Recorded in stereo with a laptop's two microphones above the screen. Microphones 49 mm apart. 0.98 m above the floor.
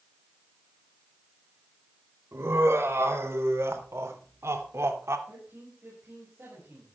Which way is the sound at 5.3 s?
45° right (ahead or behind).